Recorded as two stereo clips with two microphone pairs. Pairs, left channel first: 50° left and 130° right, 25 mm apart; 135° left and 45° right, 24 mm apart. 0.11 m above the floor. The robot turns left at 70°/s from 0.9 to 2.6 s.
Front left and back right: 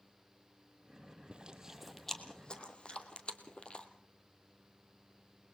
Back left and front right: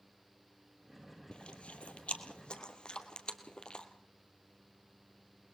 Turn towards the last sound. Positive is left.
turn(degrees=95)